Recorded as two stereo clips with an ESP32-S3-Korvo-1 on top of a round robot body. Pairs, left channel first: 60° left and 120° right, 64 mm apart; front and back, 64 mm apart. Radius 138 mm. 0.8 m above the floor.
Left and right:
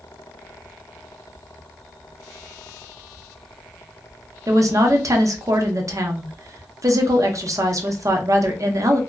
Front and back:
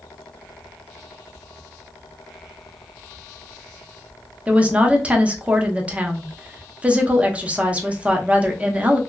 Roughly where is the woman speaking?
Behind right.